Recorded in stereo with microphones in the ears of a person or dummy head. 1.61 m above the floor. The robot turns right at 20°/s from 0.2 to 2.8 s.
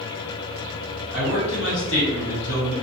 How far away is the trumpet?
I don't hear a trumpet.